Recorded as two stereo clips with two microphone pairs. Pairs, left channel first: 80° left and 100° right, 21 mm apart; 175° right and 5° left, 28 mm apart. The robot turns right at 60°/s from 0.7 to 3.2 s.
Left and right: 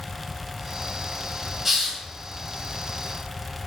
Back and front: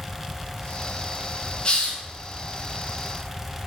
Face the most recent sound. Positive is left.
turn(degrees=-80)